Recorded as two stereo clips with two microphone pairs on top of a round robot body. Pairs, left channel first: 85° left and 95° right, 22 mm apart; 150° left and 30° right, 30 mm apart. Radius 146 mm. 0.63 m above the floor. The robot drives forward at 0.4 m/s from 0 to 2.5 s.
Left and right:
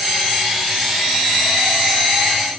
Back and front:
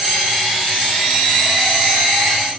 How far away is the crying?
No crying in this recording.